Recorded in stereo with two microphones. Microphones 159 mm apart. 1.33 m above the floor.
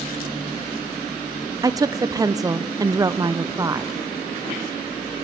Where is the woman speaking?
20° right (ahead or behind), 0.6 m.